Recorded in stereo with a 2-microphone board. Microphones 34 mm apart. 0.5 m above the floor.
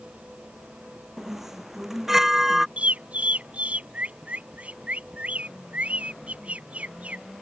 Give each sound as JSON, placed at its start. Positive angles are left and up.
{"t": 1.2, "sound": "a chime", "side_deg": -10}
{"t": 2.8, "sound": "a bird", "side_deg": -45}